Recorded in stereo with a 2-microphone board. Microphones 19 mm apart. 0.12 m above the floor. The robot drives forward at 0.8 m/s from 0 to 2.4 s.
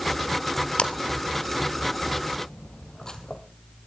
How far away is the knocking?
No knocking in this recording.